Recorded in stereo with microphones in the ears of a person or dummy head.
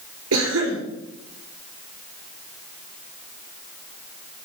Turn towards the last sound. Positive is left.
turn(degrees=-85)